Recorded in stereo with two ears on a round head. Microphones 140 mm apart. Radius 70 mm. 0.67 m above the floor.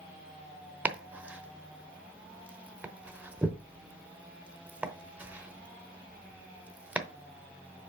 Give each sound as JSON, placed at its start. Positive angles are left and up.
{"t": 0.8, "sound": "chopping", "side_deg": -10, "distance_m": 0.9}